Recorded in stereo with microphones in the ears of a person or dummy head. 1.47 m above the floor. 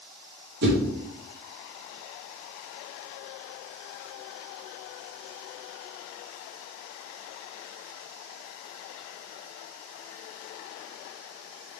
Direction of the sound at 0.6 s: 65° right (ahead or behind).